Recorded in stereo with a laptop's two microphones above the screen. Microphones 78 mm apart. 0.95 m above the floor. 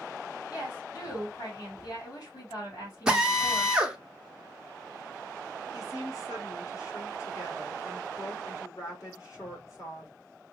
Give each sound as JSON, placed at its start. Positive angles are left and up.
{"t": 0.5, "sound": "a woman speaking", "side_deg": 60, "distance_m": 2.5}
{"t": 3.1, "sound": "a drill", "side_deg": -10, "distance_m": 0.6}
{"t": 5.7, "sound": "a woman speaking", "side_deg": 45, "distance_m": 1.8}